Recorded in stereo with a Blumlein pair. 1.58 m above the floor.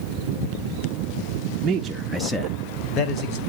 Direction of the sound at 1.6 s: 25° right.